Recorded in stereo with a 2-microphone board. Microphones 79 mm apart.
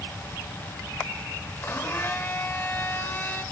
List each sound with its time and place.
1.6 s a blender: 30° left (ahead or behind), 2.5 m